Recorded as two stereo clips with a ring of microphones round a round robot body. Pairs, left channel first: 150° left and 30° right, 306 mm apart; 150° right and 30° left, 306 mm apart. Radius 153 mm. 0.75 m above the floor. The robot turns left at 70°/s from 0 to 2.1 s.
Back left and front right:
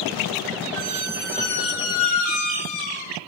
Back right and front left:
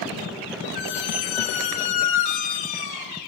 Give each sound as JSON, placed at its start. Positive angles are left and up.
{"t": 0.8, "sound": "a squeak", "azimuth_deg": -85, "distance_m": 1.7}